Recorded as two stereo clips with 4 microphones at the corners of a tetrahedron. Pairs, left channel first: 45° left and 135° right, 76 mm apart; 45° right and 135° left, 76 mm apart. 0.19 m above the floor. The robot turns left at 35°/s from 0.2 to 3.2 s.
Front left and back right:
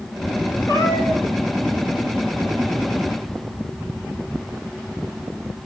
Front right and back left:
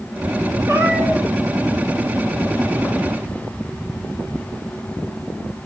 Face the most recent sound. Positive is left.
turn(degrees=-5)